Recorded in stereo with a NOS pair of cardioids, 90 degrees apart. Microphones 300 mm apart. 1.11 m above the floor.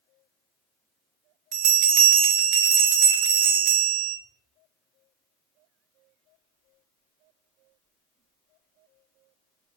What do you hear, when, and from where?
1.5 s a bell: 65° right, 0.8 m